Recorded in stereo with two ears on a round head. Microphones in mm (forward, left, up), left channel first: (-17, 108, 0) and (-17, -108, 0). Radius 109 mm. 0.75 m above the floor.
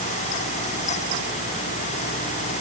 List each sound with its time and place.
Only background noise.